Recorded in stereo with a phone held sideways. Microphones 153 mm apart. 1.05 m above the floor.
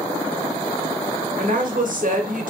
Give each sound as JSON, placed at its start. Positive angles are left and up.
{"t": 1.4, "sound": "a woman speaking", "side_deg": -60, "distance_m": 0.7}